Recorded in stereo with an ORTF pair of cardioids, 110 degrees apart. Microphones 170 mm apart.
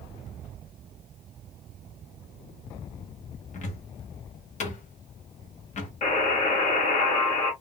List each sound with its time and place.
3.5 s a cupboard door: 45° left, 1.1 m
6.0 s a buzzer: 50° left, 1.8 m